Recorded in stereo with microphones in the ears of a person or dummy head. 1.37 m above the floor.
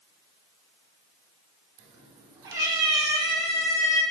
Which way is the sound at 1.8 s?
35° right (ahead or behind).